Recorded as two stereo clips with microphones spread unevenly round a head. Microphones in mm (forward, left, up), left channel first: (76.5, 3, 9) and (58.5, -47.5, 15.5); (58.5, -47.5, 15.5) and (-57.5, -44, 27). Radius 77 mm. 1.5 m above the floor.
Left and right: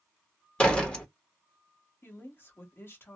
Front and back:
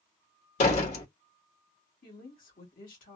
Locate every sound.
0.6 s a door slam: 5° right, 1.0 m
2.0 s a woman speaking: 25° left, 1.4 m